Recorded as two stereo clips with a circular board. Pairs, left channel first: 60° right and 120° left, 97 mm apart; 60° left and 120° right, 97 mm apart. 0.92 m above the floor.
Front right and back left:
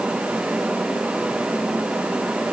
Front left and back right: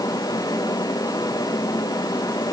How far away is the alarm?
No alarm in this recording.